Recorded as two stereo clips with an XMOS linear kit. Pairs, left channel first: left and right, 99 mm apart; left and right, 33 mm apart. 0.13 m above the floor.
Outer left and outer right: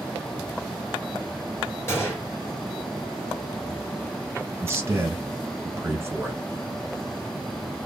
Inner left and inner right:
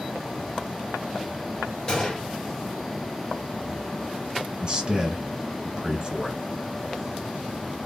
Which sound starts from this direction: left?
A gunshot, at 1.9 s.